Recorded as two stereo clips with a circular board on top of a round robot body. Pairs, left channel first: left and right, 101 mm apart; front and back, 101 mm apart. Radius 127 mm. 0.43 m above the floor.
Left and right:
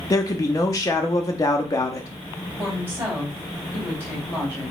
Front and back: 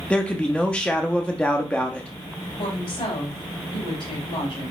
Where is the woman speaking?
20° right, 3 m.